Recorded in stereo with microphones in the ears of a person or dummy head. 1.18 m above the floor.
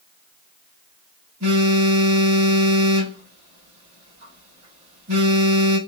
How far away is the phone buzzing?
About 1.7 m.